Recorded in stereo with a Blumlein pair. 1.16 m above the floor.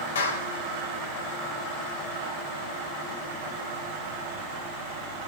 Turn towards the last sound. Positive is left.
turn(degrees=65)